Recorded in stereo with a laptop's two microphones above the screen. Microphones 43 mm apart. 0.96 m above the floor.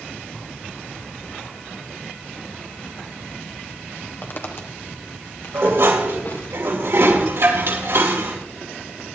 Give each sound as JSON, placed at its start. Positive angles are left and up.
{"t": 4.2, "sound": "footsteps", "side_deg": 50, "distance_m": 1.4}
{"t": 5.5, "sound": "dishes clattering", "side_deg": -90, "distance_m": 3.0}